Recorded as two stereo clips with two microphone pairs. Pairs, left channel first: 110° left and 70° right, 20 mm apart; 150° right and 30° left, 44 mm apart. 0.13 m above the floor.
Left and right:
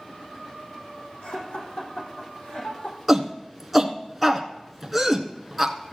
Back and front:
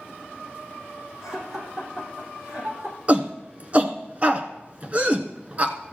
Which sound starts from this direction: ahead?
A shout, at 3.1 s.